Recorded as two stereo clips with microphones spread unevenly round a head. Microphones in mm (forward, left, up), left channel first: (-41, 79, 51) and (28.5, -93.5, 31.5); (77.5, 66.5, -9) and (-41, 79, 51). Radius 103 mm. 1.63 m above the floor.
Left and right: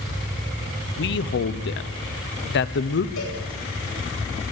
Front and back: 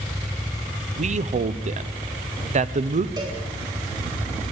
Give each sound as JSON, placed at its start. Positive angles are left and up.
{"t": 1.0, "sound": "a man speaking", "azimuth_deg": 145, "distance_m": 1.0}
{"t": 3.2, "sound": "a cowbell", "azimuth_deg": 120, "distance_m": 9.5}